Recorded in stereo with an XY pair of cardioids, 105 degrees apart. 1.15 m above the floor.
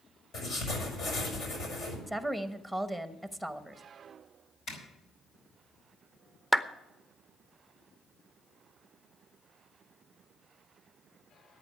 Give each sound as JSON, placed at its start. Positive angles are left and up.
{"t": 0.3, "sound": "writing", "azimuth_deg": 65, "distance_m": 5.5}
{"t": 2.1, "sound": "a woman speaking", "azimuth_deg": 5, "distance_m": 1.1}
{"t": 4.7, "sound": "a zipper", "azimuth_deg": 70, "distance_m": 5.0}
{"t": 6.5, "sound": "a clap", "azimuth_deg": 5, "distance_m": 0.7}